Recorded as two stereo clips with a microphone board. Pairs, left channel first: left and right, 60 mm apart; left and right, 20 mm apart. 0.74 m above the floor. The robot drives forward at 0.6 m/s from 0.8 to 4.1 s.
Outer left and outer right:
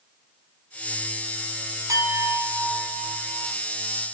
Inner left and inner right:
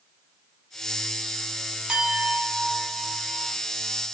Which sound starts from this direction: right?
A clink, at 1.9 s.